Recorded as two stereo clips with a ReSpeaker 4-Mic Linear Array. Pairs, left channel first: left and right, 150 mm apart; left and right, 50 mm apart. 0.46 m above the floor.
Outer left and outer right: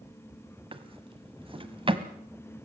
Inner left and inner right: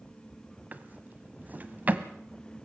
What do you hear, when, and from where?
0.7 s a drawer: 35° right (ahead or behind), 1.2 m